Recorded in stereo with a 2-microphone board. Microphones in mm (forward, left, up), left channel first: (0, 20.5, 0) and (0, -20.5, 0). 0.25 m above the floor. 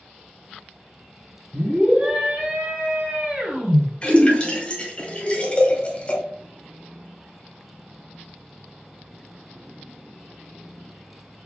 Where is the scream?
40° right (ahead or behind), 1.7 m; by 3.8 s 35° right (ahead or behind), 2.5 m.